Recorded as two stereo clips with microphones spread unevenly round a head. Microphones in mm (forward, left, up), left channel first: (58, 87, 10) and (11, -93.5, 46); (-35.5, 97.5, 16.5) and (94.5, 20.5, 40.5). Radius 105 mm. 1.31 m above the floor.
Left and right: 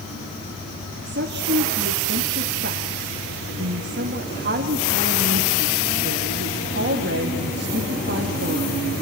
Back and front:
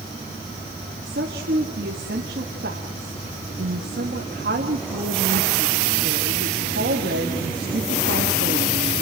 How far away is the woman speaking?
About 2.5 m.